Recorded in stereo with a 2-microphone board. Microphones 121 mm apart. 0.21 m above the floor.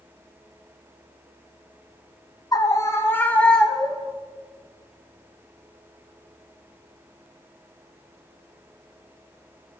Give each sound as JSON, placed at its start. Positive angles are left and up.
{"t": 2.5, "sound": "a scream", "side_deg": 30, "distance_m": 1.4}